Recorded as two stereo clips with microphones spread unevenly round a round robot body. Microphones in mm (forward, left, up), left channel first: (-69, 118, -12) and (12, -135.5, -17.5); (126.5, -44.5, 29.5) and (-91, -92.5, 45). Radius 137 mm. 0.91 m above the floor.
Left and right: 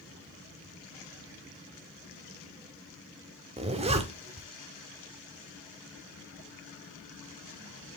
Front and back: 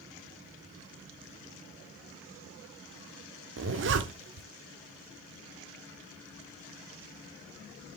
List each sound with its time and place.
3.6 s a zipper: 140° right, 1.2 m